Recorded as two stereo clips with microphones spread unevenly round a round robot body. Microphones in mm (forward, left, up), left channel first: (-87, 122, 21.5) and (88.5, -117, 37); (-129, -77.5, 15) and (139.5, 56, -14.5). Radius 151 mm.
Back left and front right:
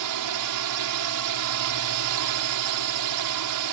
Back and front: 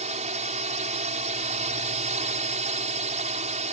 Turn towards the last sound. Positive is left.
turn(degrees=-40)